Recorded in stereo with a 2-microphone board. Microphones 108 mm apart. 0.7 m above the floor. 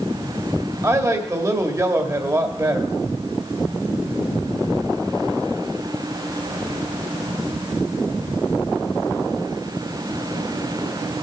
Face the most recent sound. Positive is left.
turn(degrees=-30)  # may be behind; listen again after turning